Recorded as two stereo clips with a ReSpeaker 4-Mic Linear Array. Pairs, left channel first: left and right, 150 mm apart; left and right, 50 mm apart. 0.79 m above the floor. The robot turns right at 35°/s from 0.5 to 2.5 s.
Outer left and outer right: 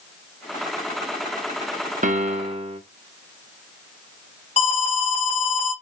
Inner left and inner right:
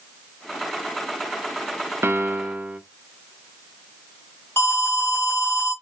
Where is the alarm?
45° left (ahead or behind), 2 m.